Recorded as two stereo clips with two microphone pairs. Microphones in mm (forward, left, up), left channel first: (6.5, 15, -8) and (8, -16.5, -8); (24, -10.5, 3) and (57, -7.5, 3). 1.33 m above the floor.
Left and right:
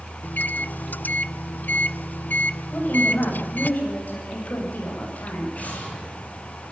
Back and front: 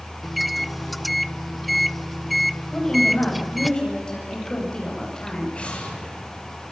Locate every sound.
0.2 s a microwave: 90° left, 0.6 m
2.7 s a woman speaking: 115° left, 9 m
5.5 s an explosion: 130° left, 8 m